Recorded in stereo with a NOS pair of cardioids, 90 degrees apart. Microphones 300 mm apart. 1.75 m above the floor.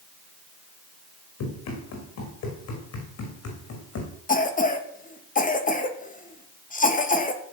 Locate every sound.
1.4 s running footsteps: 70° left, 7.5 m; by 4.1 s 60° left, 6 m
4.3 s a cough: 25° left, 2.5 m